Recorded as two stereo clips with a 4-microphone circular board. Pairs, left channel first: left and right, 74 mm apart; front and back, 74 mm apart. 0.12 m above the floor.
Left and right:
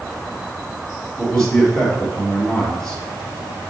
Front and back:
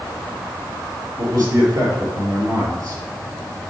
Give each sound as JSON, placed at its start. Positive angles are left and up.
{"t": 1.2, "sound": "a man speaking", "azimuth_deg": 170, "distance_m": 3.0}